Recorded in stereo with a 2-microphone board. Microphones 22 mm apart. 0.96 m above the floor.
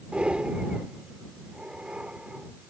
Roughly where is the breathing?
Right.